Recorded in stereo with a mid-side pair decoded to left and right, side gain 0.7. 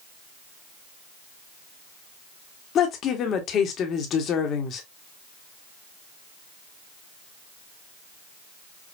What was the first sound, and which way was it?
A woman speaking, 45° left.